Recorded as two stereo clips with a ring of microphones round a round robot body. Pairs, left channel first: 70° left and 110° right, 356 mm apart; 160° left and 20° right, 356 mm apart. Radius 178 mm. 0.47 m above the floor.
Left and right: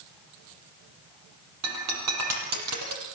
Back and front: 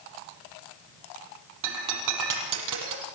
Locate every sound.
1.6 s breaking glass: 65° right, 6 m